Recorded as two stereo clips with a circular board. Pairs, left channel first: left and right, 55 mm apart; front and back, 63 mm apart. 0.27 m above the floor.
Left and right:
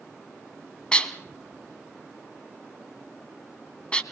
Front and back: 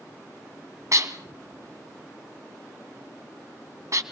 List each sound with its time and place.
0.9 s dishes clattering: 160° left, 1.4 m